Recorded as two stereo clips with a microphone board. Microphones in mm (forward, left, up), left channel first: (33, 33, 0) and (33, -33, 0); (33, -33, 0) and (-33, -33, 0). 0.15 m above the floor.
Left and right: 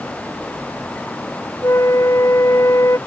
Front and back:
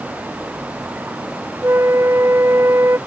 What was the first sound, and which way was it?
A flute, 130° left.